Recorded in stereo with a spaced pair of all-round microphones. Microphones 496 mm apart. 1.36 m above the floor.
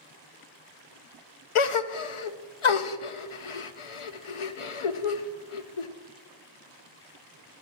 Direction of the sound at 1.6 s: 75° left (ahead or behind).